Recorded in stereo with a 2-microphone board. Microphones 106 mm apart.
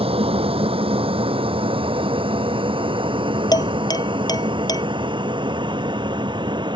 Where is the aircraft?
60° right (ahead or behind); by 6.8 s 45° right (ahead or behind).